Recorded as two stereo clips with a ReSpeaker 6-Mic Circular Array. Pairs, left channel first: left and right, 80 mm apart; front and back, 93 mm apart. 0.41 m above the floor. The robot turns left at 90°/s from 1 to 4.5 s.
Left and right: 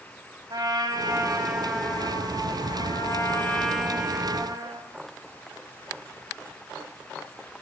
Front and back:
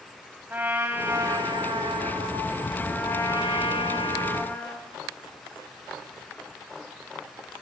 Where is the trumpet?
110° right, 2 m; by 4.9 s 65° right, 2 m.